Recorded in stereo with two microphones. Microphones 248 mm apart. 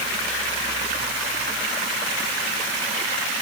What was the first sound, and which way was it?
Only background noise.